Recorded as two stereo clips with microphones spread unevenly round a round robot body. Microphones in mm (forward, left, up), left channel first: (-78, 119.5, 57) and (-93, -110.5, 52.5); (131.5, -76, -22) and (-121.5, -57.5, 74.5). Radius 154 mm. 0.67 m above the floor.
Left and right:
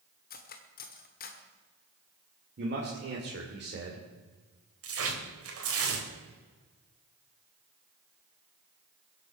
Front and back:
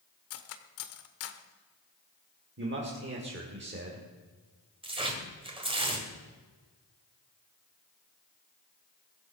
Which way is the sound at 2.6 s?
130° right.